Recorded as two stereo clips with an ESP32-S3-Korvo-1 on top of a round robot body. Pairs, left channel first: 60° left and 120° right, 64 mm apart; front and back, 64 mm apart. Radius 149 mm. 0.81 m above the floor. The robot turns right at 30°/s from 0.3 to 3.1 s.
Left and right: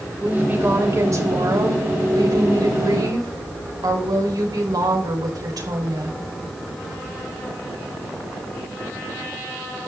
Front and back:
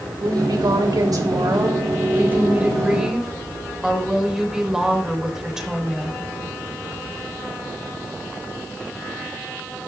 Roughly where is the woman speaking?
Behind.